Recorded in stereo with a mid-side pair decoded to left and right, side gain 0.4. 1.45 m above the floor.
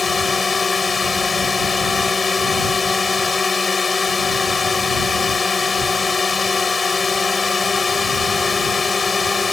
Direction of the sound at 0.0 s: 30° left.